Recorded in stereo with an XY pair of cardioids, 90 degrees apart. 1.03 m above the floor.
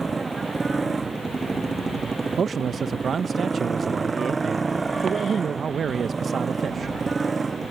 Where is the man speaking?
50° right.